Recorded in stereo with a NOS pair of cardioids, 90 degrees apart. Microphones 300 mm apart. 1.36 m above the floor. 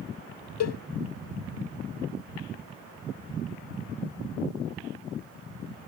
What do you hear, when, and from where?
0.6 s a cowbell: 60° left